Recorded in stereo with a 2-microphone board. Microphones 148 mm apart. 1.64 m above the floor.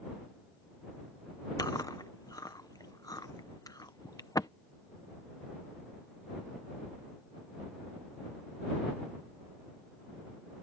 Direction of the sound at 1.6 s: 25° left (ahead or behind).